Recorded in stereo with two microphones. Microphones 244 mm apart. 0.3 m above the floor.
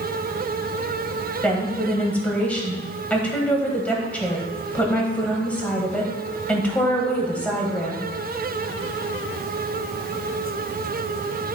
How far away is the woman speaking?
About 1.4 m.